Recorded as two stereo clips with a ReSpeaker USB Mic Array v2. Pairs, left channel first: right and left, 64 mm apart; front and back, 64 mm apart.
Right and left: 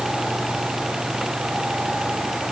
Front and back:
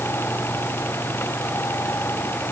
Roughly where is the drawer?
No drawer in this recording.